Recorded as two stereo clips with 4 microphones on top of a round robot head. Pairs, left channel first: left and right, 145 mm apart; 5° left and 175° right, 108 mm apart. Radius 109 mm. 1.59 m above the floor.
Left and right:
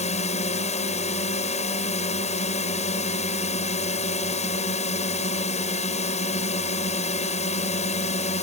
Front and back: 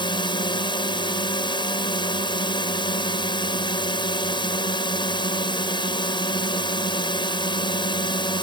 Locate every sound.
0.0 s a drone: 50° left